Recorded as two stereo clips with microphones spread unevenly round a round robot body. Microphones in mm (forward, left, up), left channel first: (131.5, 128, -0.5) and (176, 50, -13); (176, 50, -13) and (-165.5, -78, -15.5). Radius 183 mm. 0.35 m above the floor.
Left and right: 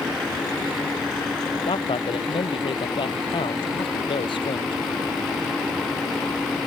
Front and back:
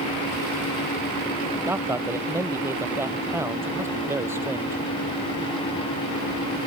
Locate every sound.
1.7 s a man speaking: 115° left